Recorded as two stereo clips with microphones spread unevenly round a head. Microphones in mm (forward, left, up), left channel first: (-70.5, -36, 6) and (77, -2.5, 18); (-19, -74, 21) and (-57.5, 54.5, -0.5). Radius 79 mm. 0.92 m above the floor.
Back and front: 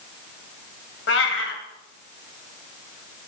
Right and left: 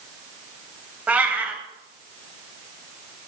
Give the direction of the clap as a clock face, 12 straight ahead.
I don't hear a clap.